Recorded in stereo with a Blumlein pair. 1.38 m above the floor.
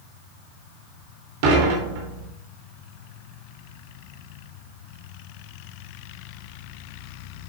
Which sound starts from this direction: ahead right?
Dishes clattering, at 1.4 s.